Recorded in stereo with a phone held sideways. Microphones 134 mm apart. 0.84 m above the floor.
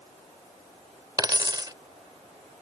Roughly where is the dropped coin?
Right.